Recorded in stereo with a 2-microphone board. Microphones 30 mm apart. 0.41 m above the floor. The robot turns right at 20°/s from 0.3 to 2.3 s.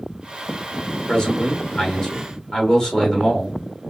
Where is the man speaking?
30° left (ahead or behind), 1.6 m; by 3.6 s 20° left (ahead or behind), 1.6 m.